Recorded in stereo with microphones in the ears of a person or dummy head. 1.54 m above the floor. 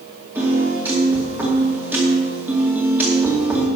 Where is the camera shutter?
I don't hear a camera shutter.